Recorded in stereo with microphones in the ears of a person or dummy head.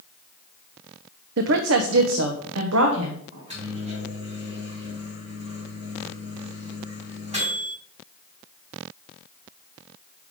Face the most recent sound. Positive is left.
turn(degrees=-30)  # may be behind; listen again after turning